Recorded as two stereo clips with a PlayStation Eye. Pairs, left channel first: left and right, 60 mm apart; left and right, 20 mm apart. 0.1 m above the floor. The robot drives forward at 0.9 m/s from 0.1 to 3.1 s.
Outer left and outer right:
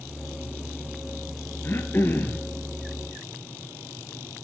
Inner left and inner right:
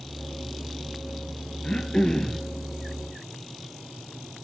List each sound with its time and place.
1.6 s throat clearing: 40° left (ahead or behind), 0.9 m; by 2.4 s 30° left (ahead or behind), 1.2 m